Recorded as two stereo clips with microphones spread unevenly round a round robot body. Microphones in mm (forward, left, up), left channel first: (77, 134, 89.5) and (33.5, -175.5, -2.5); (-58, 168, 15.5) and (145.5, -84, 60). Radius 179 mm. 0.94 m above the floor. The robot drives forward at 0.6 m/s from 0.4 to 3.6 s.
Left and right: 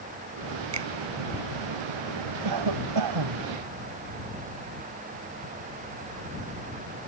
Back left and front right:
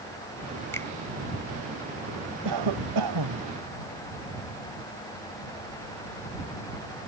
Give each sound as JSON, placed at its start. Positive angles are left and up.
{"t": 0.7, "sound": "a finger snap", "azimuth_deg": -145}
{"t": 2.5, "sound": "a cough", "azimuth_deg": -85}